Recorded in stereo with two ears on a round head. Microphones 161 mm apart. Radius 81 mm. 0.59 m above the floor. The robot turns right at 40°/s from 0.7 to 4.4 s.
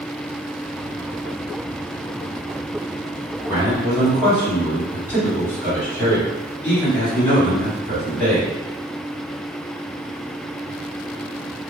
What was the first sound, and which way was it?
A man speaking, 25° right.